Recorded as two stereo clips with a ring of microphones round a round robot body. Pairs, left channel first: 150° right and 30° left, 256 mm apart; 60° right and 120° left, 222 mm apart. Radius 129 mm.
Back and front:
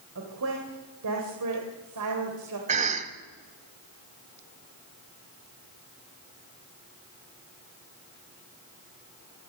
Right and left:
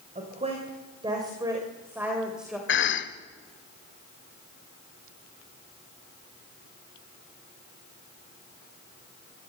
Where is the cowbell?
I don't hear a cowbell.